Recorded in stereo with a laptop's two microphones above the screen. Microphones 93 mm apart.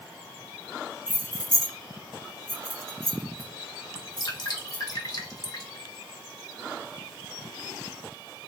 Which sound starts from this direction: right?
Keys jangling, at 1.1 s.